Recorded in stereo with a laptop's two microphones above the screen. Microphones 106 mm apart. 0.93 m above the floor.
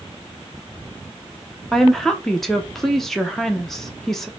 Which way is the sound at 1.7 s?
5° left (ahead or behind).